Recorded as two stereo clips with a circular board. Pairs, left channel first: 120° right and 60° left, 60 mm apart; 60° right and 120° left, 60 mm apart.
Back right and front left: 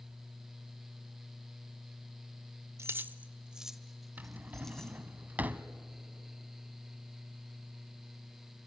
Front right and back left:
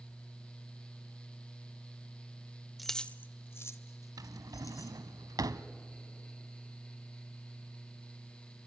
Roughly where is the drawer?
Behind left.